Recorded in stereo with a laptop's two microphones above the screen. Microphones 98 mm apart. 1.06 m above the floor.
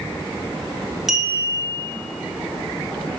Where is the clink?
Centre (ahead or behind), 0.6 m.